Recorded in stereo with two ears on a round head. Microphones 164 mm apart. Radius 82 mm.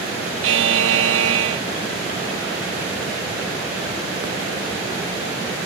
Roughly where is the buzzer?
Right.